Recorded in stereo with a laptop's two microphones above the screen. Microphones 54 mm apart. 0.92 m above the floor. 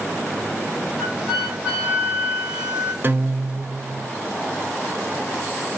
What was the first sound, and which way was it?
A flute, 20° right (ahead or behind).